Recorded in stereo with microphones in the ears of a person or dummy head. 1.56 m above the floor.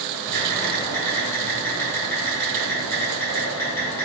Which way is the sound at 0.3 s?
10° left (ahead or behind).